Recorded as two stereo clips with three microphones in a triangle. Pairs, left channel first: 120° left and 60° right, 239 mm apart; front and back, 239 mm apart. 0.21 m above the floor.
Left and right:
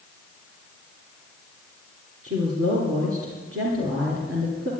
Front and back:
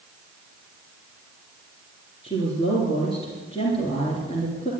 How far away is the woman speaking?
About 3.5 m.